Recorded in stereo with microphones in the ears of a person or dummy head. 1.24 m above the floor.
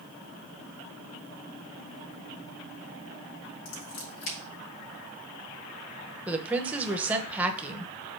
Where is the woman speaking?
5° right (ahead or behind), 1.0 m.